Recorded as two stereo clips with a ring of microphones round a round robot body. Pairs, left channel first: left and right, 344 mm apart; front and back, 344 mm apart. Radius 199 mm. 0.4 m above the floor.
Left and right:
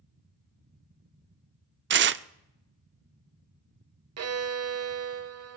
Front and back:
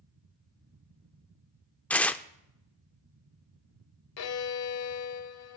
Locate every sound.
1.9 s tearing paper: 80° right, 0.6 m
4.2 s a violin: 45° right, 1.1 m